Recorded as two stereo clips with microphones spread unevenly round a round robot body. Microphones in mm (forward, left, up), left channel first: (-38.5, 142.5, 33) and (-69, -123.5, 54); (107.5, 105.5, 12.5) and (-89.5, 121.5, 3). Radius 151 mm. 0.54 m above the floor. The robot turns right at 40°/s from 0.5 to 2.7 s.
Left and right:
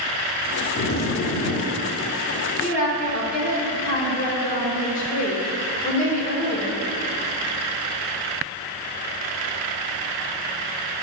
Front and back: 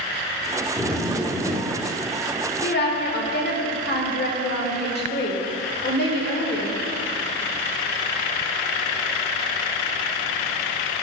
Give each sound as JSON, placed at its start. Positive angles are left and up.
{"t": 0.8, "sound": "a zipper", "azimuth_deg": 80, "distance_m": 1.0}
{"t": 2.6, "sound": "a woman speaking", "azimuth_deg": 20, "distance_m": 1.5}